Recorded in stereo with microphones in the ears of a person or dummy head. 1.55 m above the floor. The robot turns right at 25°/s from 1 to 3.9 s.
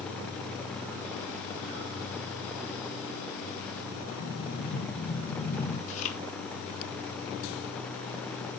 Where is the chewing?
50° left (ahead or behind), 3.5 m.